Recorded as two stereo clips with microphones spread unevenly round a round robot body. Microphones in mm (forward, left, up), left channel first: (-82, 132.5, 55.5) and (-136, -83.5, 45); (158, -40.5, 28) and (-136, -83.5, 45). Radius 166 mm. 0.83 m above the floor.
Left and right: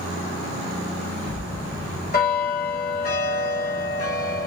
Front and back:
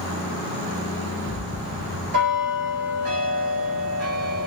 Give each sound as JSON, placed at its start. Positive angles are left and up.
{"t": 1.3, "sound": "a bell", "azimuth_deg": 125, "distance_m": 2.5}